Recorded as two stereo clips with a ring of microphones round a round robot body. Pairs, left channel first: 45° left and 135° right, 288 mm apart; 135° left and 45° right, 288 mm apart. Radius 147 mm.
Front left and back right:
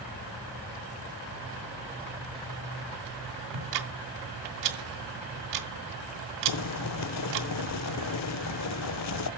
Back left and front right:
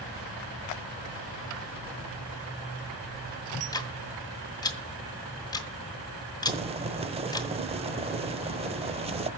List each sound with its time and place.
3.5 s ticking: 150° right, 1.9 m
6.5 s boiling: 25° left, 0.8 m